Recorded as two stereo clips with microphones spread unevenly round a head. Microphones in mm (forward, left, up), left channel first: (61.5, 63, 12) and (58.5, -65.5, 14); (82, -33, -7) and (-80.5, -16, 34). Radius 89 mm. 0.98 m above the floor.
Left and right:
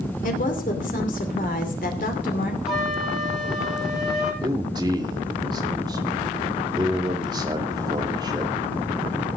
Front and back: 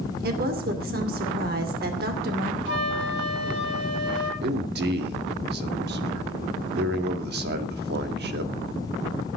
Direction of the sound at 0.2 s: 130° left.